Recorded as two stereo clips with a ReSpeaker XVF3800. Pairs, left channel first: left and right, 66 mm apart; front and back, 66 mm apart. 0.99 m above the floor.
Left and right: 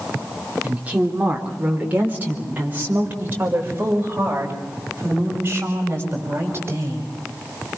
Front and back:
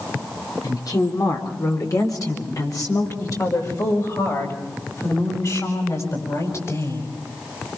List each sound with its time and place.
0.6 s a woman speaking: 20° right, 3.5 m; by 7.1 s 35° right, 7.5 m